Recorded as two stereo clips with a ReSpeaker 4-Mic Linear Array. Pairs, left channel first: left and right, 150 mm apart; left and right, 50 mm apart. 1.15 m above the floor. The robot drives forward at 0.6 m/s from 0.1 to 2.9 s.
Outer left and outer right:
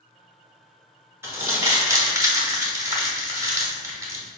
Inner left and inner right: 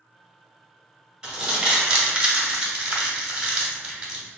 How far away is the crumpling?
About 1.1 m.